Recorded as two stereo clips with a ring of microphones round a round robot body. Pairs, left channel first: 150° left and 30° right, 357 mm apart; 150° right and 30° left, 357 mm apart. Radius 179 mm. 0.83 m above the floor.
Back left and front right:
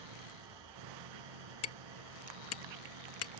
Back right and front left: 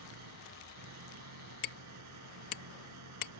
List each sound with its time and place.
0.0 s an engine running: 15° right
1.6 s hammering: 165° right